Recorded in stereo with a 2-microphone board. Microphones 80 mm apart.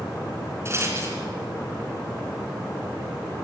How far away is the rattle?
About 3 m.